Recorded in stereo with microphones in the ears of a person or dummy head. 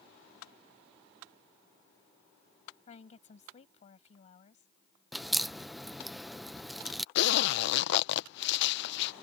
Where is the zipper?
70° left (ahead or behind).